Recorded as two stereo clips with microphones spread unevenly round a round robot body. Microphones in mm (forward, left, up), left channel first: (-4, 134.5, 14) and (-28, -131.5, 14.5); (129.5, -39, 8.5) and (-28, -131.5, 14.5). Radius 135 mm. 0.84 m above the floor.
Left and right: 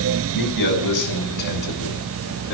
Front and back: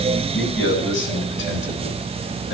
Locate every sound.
0.3 s a man speaking: 90° left, 9 m; by 2.5 s 100° left, 10.5 m